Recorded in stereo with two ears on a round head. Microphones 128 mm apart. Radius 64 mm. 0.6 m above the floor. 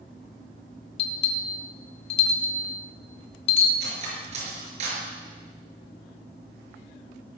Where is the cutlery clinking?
50° right (ahead or behind), 5.5 m.